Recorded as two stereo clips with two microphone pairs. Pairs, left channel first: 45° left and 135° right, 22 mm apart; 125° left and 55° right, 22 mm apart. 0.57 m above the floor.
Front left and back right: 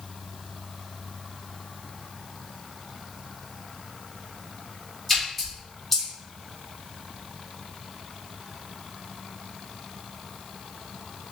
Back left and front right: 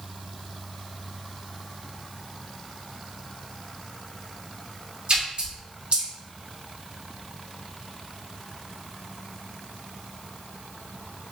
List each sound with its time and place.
5.1 s a splash: 30° right, 1.2 m